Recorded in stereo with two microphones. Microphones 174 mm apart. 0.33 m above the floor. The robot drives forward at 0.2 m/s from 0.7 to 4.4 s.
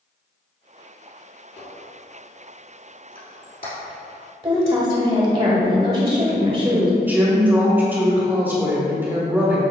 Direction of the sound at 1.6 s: 65° left (ahead or behind).